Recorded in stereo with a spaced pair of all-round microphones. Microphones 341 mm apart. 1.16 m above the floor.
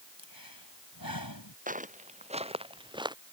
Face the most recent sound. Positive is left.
turn(degrees=-10)  # may be behind; listen again after turning